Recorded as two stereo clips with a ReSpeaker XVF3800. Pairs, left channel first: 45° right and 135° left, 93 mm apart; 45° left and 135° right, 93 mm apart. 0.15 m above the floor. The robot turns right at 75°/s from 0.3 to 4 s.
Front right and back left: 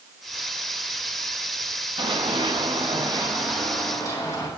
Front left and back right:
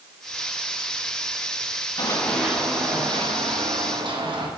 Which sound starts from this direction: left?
Running footsteps, at 2.0 s.